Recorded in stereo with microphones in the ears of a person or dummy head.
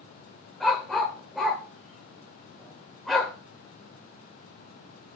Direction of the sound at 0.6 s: 5° left (ahead or behind).